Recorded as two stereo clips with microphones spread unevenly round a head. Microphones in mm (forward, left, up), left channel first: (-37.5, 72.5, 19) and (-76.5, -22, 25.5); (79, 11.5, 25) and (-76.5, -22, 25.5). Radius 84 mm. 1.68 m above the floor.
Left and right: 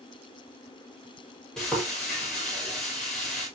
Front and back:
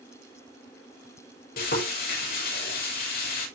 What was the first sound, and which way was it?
Frying, 20° right.